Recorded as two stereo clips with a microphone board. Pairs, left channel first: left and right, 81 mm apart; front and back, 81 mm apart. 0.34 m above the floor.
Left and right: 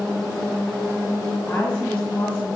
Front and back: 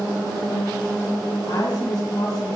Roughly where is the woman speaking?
Ahead.